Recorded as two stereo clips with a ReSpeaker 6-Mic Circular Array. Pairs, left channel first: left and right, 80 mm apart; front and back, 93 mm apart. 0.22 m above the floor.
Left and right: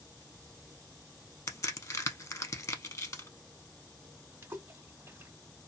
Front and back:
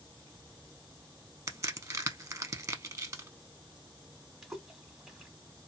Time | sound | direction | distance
1.5 | a crack | 130° left | 0.5 m
4.4 | a splash | 95° right | 0.8 m